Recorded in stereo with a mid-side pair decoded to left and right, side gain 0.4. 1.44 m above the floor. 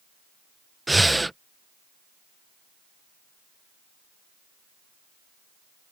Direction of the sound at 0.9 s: 10° right.